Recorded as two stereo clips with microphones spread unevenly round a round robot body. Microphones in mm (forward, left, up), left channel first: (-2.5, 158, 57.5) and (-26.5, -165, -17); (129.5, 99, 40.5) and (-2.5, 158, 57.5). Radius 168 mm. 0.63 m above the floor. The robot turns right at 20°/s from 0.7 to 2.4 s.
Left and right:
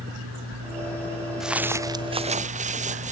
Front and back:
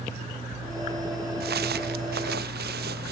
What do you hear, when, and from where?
1.4 s footsteps: 175° left; by 3.1 s 165° right